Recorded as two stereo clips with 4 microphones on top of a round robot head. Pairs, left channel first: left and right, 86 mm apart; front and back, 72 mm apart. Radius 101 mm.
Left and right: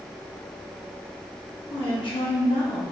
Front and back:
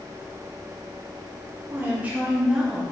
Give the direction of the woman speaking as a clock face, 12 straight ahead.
8 o'clock.